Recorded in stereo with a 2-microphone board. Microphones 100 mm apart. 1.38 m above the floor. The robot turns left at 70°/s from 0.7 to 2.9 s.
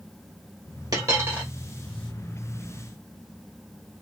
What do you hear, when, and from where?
0.9 s a dropped coin: 130° right, 1.7 m; by 1.5 s 165° right, 1.7 m